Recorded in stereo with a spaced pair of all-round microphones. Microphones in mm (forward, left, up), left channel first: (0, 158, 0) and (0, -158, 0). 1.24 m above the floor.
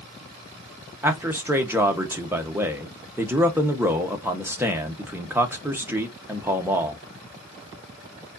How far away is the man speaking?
About 1.0 m.